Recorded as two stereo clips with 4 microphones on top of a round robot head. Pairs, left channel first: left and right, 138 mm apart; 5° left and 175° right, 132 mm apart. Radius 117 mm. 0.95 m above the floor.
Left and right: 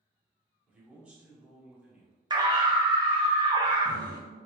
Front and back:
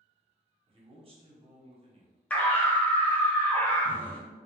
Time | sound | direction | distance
0.7 | a man speaking | 165° right | 0.9 m
2.3 | a scream | 65° right | 0.8 m